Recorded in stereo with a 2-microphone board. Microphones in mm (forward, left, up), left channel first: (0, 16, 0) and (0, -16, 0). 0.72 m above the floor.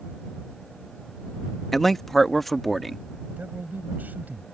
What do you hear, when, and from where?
1.7 s a man speaking: 5° left (ahead or behind)
3.4 s a man speaking: 75° right (ahead or behind)